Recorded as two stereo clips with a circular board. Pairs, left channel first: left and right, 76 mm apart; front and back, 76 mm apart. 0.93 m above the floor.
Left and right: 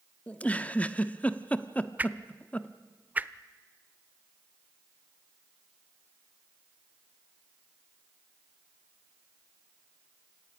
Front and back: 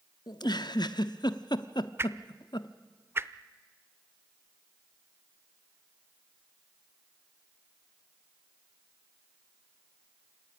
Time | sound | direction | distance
0.3 | a giggle | 20° left | 0.8 m
2.0 | a whoosh | 145° right | 0.7 m